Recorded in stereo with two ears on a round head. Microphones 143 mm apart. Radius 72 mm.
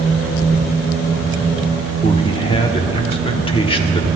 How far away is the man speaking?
About 1.1 m.